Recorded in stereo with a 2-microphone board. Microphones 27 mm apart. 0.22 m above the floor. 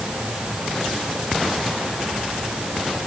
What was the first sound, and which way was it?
Only background noise.